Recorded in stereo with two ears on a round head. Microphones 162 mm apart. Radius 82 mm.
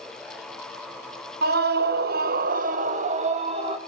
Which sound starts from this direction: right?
A scream, at 1.4 s.